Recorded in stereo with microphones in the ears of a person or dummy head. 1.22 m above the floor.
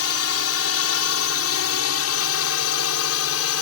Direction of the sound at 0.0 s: 70° left (ahead or behind).